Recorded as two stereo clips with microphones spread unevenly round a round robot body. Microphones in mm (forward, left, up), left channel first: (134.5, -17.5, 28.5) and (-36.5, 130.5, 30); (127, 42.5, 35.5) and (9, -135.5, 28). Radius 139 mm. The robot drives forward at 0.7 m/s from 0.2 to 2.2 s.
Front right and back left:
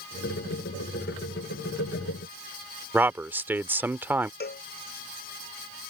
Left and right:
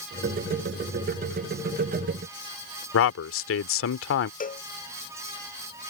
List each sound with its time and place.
2.9 s a man speaking: 60° left
4.4 s a cowbell: 5° left